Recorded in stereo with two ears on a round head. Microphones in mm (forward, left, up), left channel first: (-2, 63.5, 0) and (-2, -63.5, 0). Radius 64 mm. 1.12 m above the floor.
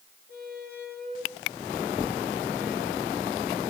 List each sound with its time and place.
0.3 s a squeak: 80° left, 4 m